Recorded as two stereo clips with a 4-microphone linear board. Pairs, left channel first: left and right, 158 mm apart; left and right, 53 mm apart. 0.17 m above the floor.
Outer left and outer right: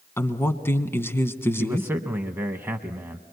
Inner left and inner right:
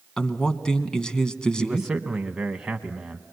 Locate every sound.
0.2 s a man speaking: 15° left (ahead or behind), 1.2 m
1.6 s a man speaking: 15° right (ahead or behind), 1.0 m